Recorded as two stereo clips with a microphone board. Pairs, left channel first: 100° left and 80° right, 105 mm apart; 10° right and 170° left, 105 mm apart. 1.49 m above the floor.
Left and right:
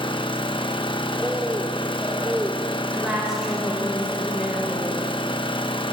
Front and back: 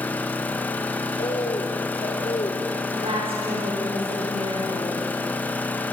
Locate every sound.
0.0 s an engine running: 60° left, 1.3 m
1.2 s a bird: 5° left, 2.5 m
2.9 s a woman speaking: 165° right, 7.5 m